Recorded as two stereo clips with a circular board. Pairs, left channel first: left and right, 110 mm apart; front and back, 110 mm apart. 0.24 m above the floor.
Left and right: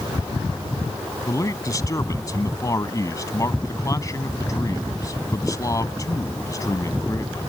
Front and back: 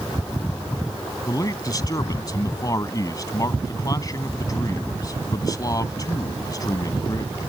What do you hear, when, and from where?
1.3 s a man speaking: 45° left